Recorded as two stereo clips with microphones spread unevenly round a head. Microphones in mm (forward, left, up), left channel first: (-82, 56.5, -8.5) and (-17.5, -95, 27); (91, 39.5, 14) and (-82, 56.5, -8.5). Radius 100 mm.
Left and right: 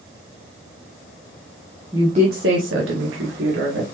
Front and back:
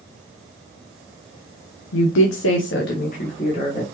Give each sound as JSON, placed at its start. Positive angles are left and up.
{"t": 1.9, "sound": "a woman speaking", "azimuth_deg": 10, "distance_m": 0.6}